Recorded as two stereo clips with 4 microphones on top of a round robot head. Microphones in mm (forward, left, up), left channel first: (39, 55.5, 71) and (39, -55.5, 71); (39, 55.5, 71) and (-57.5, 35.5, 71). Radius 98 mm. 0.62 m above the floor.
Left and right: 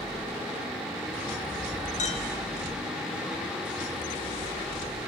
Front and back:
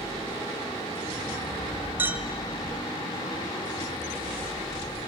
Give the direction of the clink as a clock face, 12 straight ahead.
8 o'clock.